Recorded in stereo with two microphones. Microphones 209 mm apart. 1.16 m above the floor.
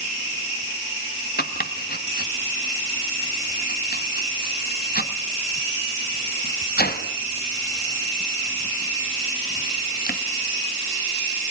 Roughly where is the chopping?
Left.